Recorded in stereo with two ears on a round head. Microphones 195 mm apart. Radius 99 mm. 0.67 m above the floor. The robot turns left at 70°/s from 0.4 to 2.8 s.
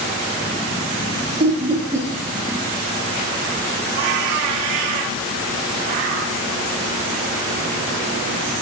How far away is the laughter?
About 0.5 m.